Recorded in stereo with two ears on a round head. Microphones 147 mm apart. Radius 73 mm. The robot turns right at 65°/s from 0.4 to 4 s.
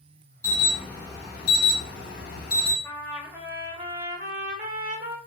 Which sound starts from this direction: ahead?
An alarm, at 0.4 s.